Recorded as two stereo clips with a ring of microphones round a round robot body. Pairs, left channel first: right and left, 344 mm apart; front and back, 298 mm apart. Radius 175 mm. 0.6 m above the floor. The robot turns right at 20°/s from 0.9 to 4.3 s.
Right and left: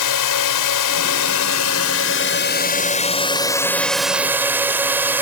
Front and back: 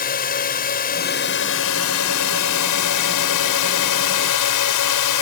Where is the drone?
65° right; by 5.2 s 5° left.